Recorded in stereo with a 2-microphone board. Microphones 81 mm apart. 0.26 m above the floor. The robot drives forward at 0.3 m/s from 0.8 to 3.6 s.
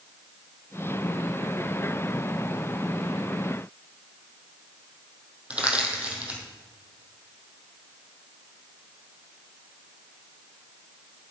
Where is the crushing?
15° right (ahead or behind), 2.5 m.